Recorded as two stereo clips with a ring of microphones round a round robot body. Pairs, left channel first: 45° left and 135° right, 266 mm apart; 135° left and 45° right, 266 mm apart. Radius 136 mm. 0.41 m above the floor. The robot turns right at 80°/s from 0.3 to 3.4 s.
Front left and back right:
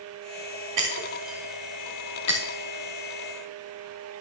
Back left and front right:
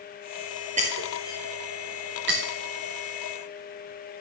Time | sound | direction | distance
0.8 | breaking glass | 110° right | 4 m